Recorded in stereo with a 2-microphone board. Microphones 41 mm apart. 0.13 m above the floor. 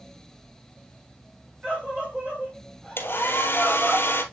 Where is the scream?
30° right (ahead or behind), 5.5 m; by 4.0 s 20° right (ahead or behind), 4 m.